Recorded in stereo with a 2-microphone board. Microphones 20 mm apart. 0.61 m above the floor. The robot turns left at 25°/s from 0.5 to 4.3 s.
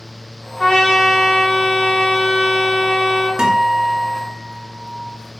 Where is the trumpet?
160° left, 1.9 m; by 3.3 s 90° left, 1.9 m.